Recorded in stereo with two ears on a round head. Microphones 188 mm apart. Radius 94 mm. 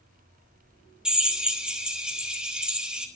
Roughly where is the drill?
Centre.